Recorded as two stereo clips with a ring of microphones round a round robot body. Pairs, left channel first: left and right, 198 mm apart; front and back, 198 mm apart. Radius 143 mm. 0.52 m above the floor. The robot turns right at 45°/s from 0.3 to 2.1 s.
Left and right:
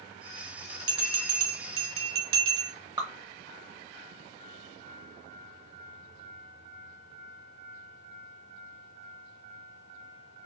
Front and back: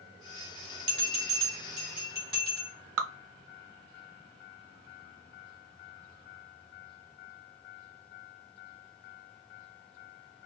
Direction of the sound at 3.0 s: 165° right.